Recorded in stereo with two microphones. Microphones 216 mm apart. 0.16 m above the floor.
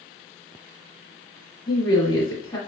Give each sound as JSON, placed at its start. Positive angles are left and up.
{"t": 1.7, "sound": "a woman speaking", "side_deg": 20, "distance_m": 1.2}